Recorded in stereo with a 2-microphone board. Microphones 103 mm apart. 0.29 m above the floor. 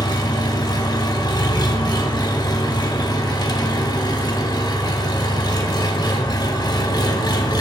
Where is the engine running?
45° left (ahead or behind), 0.8 m.